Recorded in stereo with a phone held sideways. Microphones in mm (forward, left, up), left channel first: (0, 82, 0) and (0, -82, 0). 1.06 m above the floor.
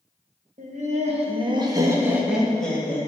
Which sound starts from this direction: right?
Laughter, at 0.6 s.